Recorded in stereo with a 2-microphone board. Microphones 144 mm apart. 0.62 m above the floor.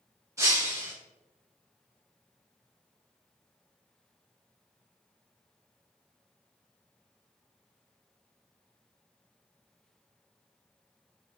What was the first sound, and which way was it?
Breaking glass, 20° right (ahead or behind).